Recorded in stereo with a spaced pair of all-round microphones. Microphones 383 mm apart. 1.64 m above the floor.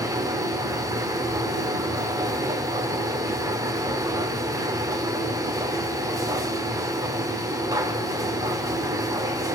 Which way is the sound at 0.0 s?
10° right (ahead or behind).